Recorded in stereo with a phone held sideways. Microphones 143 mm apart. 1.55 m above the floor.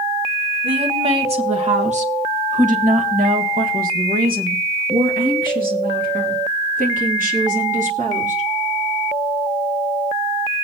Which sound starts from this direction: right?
A woman speaking, at 0.6 s.